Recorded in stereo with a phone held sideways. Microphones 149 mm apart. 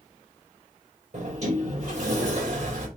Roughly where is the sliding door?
Right.